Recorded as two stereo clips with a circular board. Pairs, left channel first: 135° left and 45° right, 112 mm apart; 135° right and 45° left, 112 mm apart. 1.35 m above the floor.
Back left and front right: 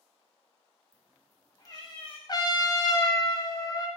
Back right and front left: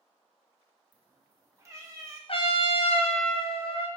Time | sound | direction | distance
0.9 | a cat meowing | 15° right | 0.5 m
2.3 | a trumpet | 170° right | 0.5 m